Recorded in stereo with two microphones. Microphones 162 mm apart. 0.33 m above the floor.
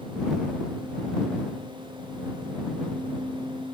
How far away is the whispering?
I don't hear whispering.